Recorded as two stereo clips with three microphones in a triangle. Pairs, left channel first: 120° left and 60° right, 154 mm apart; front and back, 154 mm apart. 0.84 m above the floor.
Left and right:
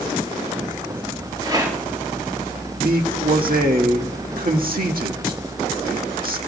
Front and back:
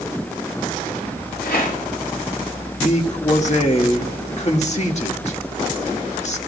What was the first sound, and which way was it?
A rattle, 5° left.